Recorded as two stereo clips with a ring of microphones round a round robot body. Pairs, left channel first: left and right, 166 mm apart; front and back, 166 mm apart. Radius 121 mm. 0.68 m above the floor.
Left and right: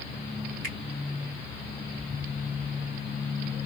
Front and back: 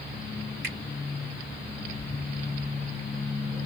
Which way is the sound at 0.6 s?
145° right.